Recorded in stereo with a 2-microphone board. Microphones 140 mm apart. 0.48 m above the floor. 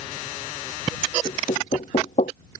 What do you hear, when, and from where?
1.2 s knocking: 55° left (ahead or behind)